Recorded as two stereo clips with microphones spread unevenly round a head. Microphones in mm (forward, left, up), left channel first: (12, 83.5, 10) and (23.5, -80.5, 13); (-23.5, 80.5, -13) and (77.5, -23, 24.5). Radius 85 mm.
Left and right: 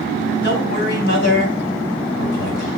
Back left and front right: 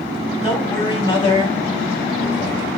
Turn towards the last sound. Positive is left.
turn(degrees=80)